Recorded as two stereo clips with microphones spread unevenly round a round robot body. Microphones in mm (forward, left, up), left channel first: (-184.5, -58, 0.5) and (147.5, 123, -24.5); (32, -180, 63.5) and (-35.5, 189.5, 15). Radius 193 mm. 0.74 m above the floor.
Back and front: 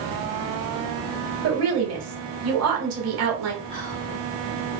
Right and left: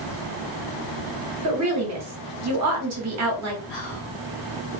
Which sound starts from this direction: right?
Whispering, at 3.7 s.